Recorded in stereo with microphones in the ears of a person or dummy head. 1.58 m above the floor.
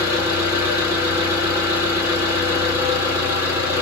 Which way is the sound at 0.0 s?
10° right (ahead or behind).